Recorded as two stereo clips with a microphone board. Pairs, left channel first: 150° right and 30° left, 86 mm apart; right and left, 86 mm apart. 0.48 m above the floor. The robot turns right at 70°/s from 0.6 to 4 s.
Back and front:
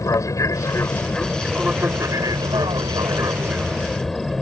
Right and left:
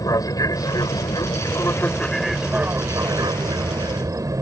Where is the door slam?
No door slam in this recording.